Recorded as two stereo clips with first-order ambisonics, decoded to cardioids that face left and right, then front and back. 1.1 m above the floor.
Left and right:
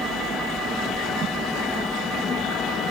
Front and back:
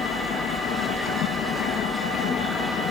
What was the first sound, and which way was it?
A helicopter, 30° right.